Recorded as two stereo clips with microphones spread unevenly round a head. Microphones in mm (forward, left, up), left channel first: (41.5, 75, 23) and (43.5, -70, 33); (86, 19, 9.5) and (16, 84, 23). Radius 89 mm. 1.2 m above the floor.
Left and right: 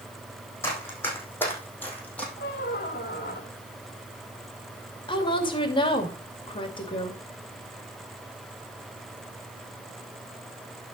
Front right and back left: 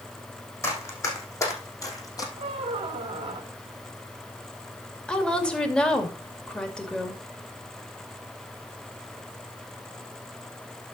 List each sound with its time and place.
0.6 s running footsteps: 15° left, 4 m; by 2.3 s 10° left, 3 m
2.4 s a squeak: 130° left, 2 m
5.1 s a woman speaking: 35° left, 2.5 m